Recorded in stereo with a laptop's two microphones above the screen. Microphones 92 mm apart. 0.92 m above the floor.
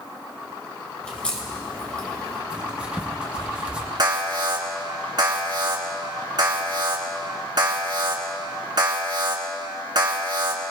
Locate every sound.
1.0 s a crack: 15° left (ahead or behind), 1.6 m
2.5 s writing: 10° right (ahead or behind), 0.9 m
4.0 s an alarm: 50° right (ahead or behind), 2.5 m